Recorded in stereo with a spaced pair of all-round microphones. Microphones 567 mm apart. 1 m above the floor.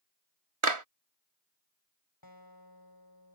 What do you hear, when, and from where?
0.6 s a clap: 60° right (ahead or behind)
2.2 s a guitar: 40° left (ahead or behind)